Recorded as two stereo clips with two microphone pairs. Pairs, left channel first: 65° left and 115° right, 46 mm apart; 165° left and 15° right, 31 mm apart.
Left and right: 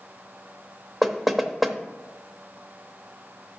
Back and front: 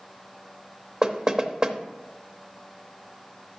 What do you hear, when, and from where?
1.0 s knocking: 30° right, 0.7 m